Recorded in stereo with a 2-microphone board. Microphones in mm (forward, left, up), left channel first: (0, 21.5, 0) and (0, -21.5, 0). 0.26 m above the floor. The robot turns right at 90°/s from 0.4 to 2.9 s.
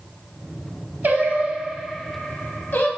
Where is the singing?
50° right (ahead or behind), 0.5 m; by 2.9 s 55° left (ahead or behind), 0.5 m.